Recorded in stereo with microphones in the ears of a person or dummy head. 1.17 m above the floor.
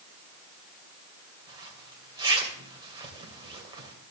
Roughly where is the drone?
I don't hear a drone.